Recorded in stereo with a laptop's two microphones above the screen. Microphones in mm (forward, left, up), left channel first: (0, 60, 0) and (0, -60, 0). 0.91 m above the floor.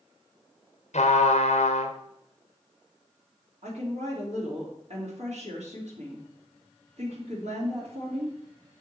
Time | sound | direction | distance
0.9 | a trumpet | 75° left (ahead or behind) | 0.8 m
3.6 | a woman speaking | 65° right (ahead or behind) | 2.5 m